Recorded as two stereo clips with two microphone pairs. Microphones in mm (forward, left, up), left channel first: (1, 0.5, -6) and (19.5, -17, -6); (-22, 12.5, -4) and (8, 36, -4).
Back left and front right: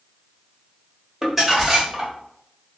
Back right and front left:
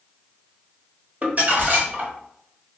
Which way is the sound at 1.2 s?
35° left.